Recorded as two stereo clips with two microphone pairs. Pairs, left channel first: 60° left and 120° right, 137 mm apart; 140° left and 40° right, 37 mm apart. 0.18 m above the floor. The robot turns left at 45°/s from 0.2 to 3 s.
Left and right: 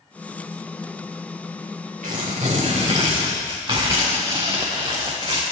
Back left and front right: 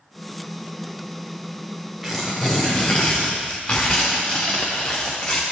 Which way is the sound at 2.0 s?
125° right.